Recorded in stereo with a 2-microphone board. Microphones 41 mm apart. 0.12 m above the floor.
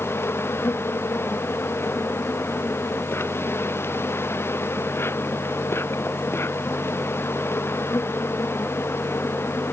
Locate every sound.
0.0 s an insect: 85° left